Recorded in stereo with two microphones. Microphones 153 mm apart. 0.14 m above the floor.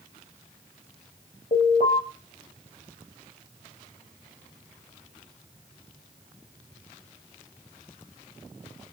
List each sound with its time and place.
1.5 s an alarm: 75° left (ahead or behind), 4 m